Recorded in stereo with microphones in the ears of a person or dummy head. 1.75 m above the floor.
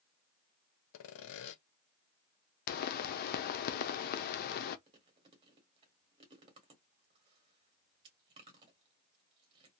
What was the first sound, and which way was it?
Sawing, 70° left (ahead or behind).